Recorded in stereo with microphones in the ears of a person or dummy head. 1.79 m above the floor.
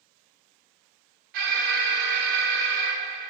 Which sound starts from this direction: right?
An alarm, at 1.3 s.